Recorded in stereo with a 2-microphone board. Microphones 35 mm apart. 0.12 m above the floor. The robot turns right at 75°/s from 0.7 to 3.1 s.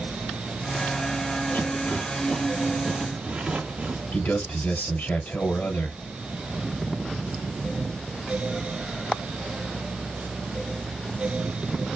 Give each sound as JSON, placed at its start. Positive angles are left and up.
{"t": 1.5, "sound": "a rattle", "side_deg": 50, "distance_m": 3.0}
{"t": 4.1, "sound": "a man speaking", "side_deg": 50, "distance_m": 2.0}